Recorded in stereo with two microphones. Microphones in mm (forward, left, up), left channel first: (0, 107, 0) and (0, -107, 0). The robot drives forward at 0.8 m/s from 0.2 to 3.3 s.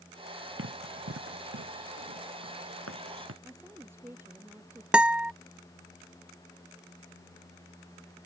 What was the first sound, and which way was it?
Running footsteps, 70° right (ahead or behind).